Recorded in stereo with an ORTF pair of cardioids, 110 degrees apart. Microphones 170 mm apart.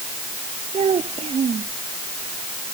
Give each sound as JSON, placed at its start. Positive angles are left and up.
{"t": 0.7, "sound": "a child speaking", "azimuth_deg": -35}